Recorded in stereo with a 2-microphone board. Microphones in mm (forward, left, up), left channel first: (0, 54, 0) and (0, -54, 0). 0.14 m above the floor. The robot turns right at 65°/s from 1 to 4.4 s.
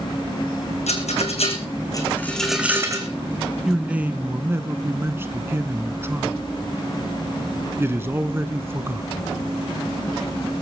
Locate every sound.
0.9 s a rattle: 80° left, 2.5 m; by 3.1 s 35° right (ahead or behind), 2.5 m
3.6 s a man speaking: 5° right (ahead or behind), 1.1 m; by 9.3 s 20° right (ahead or behind), 1.1 m